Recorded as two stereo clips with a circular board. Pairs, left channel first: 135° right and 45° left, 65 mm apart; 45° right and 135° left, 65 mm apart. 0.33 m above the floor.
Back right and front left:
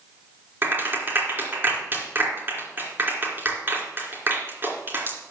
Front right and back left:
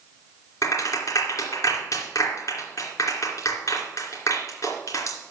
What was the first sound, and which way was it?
A clap, 10° right.